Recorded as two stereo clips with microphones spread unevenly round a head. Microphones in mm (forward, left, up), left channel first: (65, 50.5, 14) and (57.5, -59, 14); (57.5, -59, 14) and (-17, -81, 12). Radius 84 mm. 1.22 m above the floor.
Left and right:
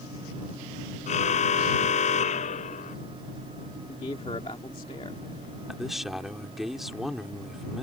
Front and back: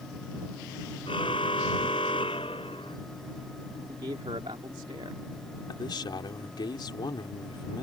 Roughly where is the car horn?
Left.